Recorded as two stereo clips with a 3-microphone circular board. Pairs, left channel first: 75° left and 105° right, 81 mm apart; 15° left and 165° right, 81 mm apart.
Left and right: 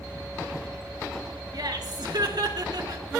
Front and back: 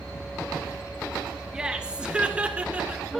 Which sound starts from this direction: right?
Laughter, at 1.5 s.